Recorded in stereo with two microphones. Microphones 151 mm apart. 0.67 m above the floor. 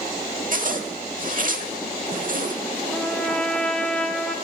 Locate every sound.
0.5 s a zipper: 60° right (ahead or behind), 1.0 m
2.9 s a trumpet: 5° left (ahead or behind), 0.8 m